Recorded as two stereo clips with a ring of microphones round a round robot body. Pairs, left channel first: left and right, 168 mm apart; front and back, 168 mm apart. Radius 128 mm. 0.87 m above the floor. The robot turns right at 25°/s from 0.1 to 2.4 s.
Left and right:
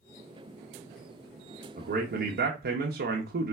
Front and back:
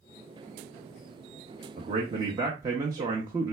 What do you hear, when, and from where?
1.8 s a man speaking: 125° right, 0.7 m; by 3.5 s 110° right, 0.7 m